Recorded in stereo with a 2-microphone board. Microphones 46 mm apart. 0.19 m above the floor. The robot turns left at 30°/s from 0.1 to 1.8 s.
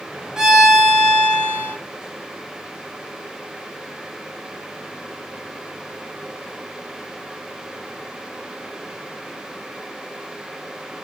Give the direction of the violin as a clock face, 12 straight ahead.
6 o'clock.